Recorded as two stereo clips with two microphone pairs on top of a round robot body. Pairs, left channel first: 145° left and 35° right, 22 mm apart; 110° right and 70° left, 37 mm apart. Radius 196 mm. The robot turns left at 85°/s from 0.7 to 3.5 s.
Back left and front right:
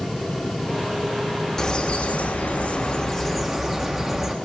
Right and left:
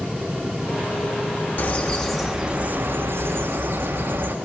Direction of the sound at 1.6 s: 145° right.